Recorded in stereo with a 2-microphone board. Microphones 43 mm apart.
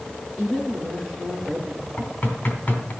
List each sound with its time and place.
0.4 s a woman speaking: centre (ahead or behind), 4 m
2.0 s knocking: 30° left (ahead or behind), 2.5 m